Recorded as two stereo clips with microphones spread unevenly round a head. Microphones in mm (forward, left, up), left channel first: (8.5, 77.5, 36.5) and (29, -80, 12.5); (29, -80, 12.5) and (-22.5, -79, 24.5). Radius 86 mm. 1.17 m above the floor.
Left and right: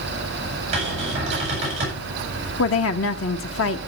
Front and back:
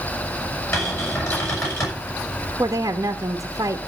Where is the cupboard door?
30° right, 8 m.